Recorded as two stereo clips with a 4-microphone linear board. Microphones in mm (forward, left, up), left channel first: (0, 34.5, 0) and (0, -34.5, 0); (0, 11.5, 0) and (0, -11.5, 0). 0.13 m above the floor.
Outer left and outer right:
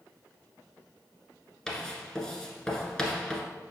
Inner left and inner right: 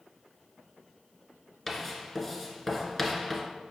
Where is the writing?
10° left (ahead or behind), 1.4 m.